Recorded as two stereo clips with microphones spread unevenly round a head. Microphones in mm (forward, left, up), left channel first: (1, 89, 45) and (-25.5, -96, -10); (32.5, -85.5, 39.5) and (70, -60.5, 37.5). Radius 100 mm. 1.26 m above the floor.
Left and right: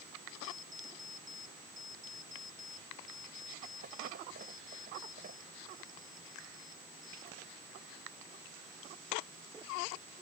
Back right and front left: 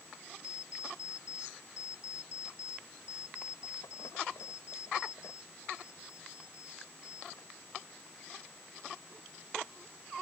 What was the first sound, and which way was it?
An alarm clock, 150° right.